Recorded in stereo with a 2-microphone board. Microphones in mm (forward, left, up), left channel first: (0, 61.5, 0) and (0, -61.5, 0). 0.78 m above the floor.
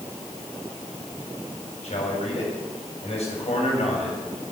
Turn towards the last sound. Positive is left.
turn(degrees=65)  # may be behind; listen again after turning